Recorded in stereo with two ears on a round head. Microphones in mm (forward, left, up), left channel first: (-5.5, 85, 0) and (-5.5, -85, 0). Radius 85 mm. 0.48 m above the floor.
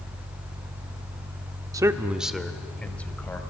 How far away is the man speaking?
About 0.8 m.